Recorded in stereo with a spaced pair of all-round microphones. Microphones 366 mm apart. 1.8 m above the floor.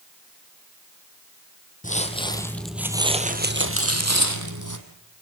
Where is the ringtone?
10° right (ahead or behind), 2 m.